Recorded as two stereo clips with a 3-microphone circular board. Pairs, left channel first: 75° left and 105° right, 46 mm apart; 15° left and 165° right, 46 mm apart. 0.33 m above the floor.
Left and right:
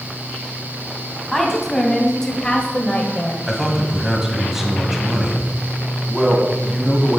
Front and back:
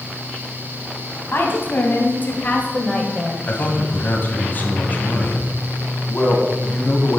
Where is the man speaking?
25° right, 1.8 m.